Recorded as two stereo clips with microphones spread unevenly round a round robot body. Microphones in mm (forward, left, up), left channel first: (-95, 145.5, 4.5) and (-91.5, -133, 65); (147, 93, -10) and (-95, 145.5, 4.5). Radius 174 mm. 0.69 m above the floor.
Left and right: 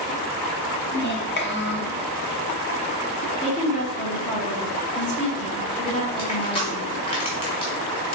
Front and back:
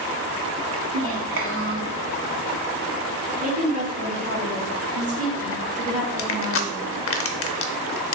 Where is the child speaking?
135° left, 1.0 m.